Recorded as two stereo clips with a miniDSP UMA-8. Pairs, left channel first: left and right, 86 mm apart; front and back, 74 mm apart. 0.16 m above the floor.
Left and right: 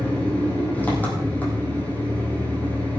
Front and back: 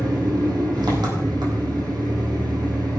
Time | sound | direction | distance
0.0 | an engine running | 160° left | 4 m